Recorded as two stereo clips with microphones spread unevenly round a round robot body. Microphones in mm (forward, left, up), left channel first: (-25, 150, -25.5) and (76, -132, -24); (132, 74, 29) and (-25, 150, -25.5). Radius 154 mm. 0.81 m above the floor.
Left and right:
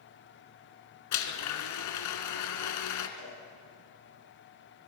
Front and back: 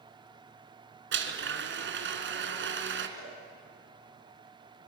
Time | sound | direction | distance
1.1 | a blender | 140° left | 1.9 m
3.2 | a cowbell | 35° right | 6.5 m